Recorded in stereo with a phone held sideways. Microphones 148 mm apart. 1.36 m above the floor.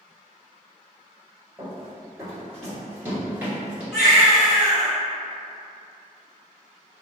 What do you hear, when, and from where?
1.6 s running footsteps: 20° right (ahead or behind), 1.9 m; by 3.8 s 10° right (ahead or behind), 1.3 m
3.9 s a baby crying: 5° right (ahead or behind), 1.2 m